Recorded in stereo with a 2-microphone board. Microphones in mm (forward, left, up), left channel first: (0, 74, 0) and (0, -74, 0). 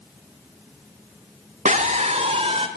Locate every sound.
1.6 s a scream: 50° right (ahead or behind), 1.5 m; by 2.7 s 40° right (ahead or behind), 2.5 m